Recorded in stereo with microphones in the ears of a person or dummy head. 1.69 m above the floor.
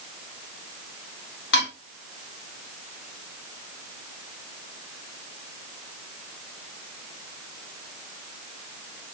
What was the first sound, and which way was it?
Dishes clattering, 55° left (ahead or behind).